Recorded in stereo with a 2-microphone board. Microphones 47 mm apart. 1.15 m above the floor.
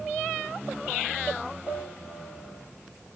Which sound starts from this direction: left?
A piano, at 1.7 s.